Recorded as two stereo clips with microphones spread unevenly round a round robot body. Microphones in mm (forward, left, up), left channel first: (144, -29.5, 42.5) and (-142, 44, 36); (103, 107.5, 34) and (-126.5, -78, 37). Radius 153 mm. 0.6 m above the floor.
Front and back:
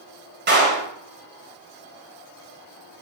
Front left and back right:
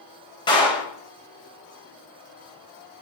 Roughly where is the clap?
Behind left.